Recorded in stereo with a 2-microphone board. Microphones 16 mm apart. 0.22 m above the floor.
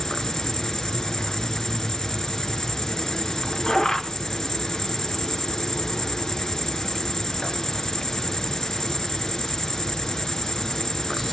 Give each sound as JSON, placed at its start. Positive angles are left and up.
{"t": 0.0, "sound": "an insect", "side_deg": 35, "distance_m": 1.0}